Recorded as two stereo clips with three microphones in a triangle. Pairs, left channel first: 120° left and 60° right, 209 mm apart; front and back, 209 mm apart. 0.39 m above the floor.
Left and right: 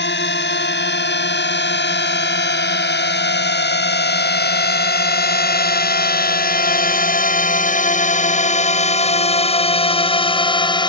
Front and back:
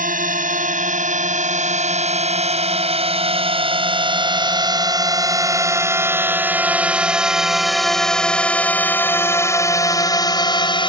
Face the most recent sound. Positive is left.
turn(degrees=60)